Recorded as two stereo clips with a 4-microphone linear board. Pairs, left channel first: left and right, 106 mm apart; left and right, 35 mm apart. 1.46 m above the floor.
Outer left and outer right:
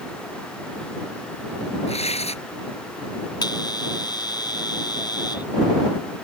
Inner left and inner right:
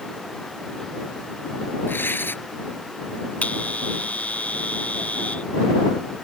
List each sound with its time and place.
1.9 s tearing paper: 75° left (ahead or behind)
3.4 s a bell: 40° left (ahead or behind)